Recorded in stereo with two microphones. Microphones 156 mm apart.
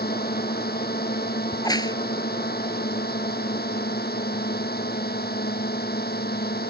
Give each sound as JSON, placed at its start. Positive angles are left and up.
{"t": 0.0, "sound": "a drone", "side_deg": 80}
{"t": 1.5, "sound": "a crack", "side_deg": 25}